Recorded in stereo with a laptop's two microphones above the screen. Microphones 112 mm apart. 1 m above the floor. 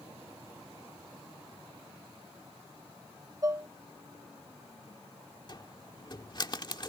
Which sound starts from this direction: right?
Dishes clattering, at 3.4 s.